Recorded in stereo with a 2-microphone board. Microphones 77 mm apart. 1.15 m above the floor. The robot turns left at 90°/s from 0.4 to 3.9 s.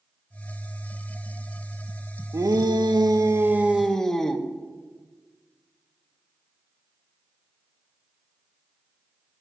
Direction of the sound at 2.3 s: 45° right.